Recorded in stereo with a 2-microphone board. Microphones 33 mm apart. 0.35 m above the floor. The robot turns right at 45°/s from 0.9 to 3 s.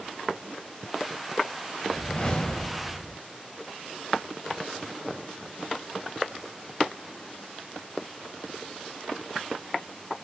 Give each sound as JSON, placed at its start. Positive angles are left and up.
{"t": 1.9, "sound": "a whoosh", "azimuth_deg": 120, "distance_m": 0.8}